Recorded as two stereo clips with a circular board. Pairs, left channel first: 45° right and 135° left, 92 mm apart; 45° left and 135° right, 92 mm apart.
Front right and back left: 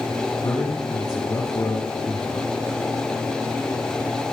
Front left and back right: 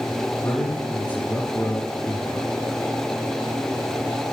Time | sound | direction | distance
0.4 | a man speaking | 15° right | 2 m